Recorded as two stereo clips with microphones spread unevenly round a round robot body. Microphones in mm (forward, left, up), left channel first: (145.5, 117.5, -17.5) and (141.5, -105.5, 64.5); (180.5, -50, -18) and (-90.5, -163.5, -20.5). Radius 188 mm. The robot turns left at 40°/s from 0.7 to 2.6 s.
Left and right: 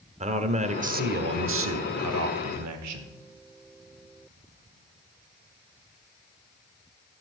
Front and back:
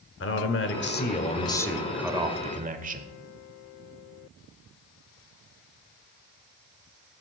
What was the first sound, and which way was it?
A man speaking, 20° right.